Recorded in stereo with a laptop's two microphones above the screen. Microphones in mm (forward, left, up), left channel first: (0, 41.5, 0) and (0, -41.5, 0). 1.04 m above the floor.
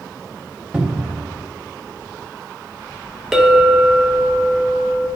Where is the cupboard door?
10° right (ahead or behind), 1.2 m.